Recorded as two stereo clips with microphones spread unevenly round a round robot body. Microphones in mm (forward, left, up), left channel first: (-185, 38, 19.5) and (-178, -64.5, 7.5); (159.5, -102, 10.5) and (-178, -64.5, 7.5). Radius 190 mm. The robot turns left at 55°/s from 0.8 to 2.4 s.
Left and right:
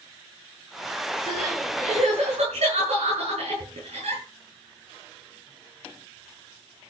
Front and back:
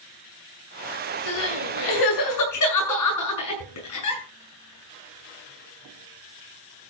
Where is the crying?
20° left, 7 m; by 4.2 s 40° right, 7 m.